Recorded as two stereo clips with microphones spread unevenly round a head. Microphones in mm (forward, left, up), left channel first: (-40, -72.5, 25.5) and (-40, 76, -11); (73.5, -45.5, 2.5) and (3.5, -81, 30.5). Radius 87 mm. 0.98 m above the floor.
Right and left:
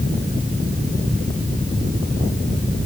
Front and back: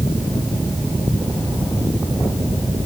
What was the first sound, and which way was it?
Only background noise.